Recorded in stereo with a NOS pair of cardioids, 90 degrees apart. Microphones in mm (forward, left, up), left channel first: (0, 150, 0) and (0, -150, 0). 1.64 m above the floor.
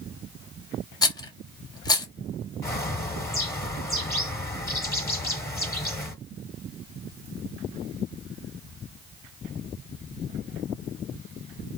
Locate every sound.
1.0 s a rattle: 15° left, 0.9 m
2.6 s a bird: 10° left, 1.2 m